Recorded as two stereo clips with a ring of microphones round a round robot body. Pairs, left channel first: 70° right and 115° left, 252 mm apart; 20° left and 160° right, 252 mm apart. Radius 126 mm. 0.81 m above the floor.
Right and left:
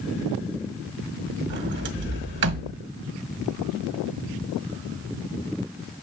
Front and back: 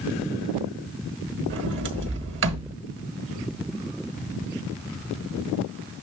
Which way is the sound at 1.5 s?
160° left.